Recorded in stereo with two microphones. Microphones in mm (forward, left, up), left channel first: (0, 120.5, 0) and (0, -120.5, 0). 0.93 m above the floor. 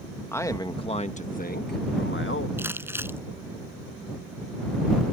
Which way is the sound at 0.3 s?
10° left (ahead or behind).